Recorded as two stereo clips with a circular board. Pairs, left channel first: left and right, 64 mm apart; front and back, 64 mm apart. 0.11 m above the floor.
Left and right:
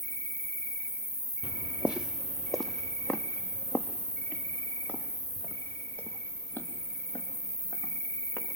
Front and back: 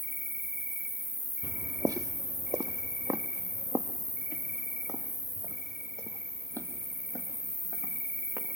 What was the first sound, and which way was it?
An insect, 130° left.